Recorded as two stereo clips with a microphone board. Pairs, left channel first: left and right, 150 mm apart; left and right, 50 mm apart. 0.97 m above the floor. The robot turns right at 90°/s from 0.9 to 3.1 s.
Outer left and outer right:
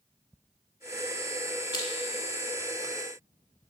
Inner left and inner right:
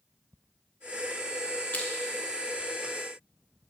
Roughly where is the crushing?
Left.